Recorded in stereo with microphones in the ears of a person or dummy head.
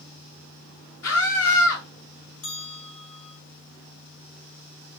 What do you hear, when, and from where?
1.0 s a scream: 80° left, 2.5 m
2.4 s a bell: 75° left (ahead or behind), 4 m